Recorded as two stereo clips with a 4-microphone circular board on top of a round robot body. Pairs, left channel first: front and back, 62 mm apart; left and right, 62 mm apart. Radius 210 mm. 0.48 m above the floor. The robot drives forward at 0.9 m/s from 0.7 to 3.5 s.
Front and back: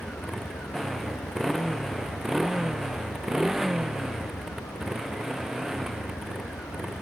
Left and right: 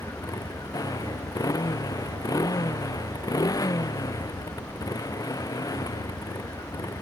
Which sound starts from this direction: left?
A motorcycle, at 0.0 s.